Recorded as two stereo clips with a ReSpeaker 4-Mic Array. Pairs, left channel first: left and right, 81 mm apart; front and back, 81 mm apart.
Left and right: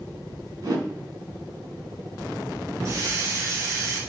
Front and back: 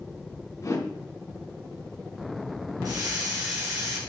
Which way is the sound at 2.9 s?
140° right.